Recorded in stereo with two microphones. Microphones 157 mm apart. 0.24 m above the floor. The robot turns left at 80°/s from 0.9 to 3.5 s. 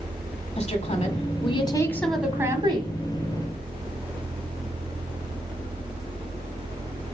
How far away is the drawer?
No drawer in this recording.